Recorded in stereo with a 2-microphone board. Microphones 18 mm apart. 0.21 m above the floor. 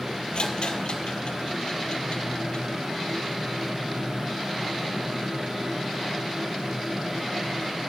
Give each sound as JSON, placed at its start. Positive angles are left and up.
{"t": 0.3, "sound": "a rattle", "side_deg": 80, "distance_m": 1.0}